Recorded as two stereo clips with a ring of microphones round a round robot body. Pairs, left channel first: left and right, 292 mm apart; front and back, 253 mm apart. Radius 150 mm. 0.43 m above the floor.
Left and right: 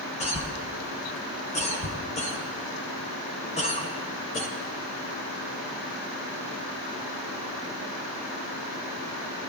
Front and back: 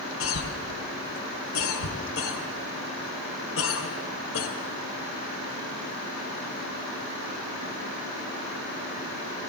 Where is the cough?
25° left, 1.8 m.